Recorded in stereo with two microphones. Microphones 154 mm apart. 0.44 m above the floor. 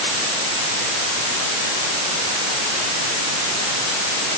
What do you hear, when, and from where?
Only background noise.